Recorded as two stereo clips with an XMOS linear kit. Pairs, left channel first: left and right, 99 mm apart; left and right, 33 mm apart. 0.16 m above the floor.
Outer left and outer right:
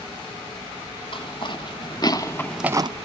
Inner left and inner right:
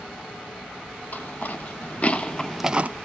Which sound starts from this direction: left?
Footsteps, at 1.1 s.